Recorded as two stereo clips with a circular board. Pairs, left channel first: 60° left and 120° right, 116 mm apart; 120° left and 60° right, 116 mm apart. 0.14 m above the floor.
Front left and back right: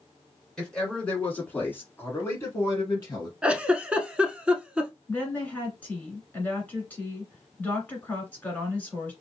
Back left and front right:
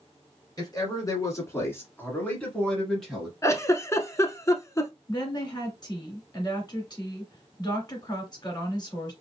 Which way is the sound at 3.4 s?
165° left.